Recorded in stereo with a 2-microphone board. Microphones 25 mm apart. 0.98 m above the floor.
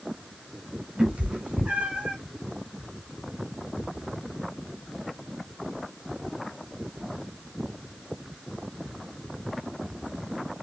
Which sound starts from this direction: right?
A cat meowing, at 1.0 s.